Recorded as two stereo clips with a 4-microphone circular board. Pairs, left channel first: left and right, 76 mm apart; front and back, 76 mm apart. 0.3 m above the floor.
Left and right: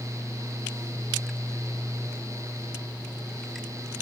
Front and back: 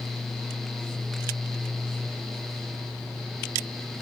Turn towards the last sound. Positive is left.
No sound to turn to.